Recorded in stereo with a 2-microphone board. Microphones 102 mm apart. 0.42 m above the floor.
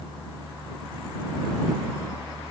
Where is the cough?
No cough in this recording.